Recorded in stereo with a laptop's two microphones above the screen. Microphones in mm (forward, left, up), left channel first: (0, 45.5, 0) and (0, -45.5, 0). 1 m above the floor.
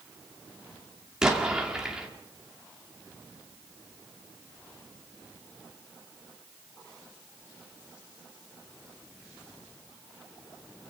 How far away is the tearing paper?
No tearing paper in this recording.